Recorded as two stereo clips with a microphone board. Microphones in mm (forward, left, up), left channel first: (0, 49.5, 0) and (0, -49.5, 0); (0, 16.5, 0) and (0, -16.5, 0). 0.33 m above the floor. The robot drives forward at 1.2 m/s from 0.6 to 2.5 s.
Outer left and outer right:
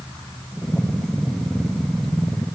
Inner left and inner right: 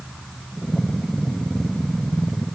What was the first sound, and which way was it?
Only background noise.